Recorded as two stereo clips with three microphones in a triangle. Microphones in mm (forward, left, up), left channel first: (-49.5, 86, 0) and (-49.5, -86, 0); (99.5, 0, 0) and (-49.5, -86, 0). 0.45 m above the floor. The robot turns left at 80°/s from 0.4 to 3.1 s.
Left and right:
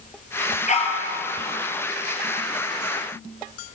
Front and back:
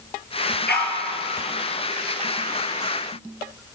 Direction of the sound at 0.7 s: 50° left.